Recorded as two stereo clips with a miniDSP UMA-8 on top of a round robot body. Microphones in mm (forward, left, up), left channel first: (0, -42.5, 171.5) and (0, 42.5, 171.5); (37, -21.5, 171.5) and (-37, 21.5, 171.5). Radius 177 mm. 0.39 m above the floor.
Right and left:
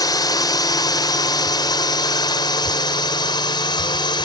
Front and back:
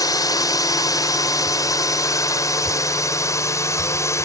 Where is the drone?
60° right; by 4.3 s 80° right.